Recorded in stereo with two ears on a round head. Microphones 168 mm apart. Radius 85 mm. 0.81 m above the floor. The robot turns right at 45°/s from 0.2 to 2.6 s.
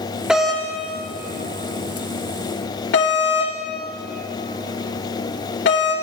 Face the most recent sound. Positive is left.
turn(degrees=65)  # may be behind; listen again after turning